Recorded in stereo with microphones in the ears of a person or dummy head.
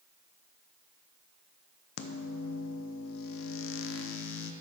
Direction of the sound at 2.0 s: 70° left (ahead or behind).